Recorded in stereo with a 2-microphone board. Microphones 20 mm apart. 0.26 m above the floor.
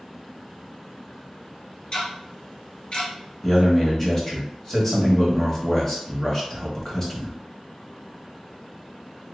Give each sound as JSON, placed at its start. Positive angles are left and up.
{"t": 1.9, "sound": "ticking", "side_deg": 50, "distance_m": 1.7}
{"t": 3.4, "sound": "a man speaking", "side_deg": 20, "distance_m": 1.1}